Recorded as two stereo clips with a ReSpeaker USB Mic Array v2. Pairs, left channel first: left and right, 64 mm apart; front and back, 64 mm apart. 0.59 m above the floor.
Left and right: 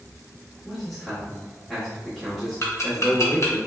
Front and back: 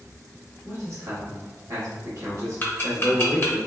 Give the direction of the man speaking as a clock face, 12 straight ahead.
6 o'clock.